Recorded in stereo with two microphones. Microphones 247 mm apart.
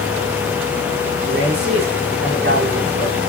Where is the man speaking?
45° right (ahead or behind), 10 m.